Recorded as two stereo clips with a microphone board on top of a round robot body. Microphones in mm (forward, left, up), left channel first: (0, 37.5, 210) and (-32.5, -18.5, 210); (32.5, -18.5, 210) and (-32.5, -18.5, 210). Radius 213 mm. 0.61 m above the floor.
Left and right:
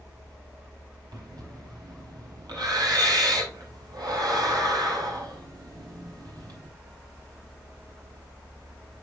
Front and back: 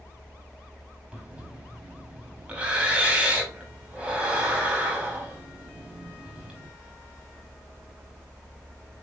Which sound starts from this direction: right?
Breathing, at 1.1 s.